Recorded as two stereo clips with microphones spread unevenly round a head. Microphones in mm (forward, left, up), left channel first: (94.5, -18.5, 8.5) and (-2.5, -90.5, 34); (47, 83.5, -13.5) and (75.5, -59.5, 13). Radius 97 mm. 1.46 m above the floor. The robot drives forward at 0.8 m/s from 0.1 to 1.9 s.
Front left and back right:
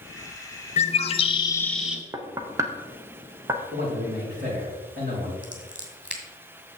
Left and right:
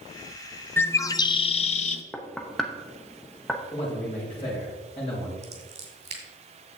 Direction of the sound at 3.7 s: 165° left.